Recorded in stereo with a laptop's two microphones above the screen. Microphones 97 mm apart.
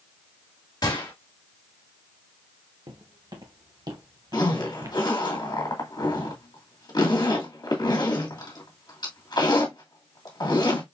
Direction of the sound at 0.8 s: 45° left (ahead or behind).